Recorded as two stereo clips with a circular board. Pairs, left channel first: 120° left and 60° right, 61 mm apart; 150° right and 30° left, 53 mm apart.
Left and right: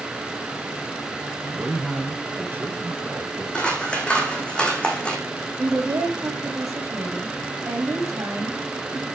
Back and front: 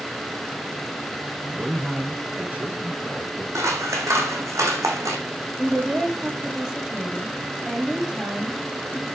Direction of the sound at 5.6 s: 40° right.